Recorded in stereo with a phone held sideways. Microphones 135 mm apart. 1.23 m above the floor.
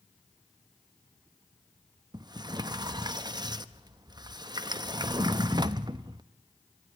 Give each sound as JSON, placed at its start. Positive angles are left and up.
{"t": 2.1, "sound": "a sliding door", "side_deg": -30, "distance_m": 0.6}